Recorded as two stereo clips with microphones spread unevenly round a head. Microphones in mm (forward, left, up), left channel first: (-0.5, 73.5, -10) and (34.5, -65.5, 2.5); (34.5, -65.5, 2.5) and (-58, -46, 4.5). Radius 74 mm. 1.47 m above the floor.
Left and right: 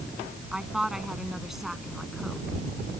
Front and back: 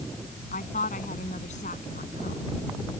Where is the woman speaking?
10° left; by 2.5 s 15° left.